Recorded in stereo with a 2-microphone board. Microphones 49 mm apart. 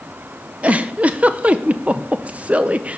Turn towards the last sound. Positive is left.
turn(degrees=-30)  # may be behind; listen again after turning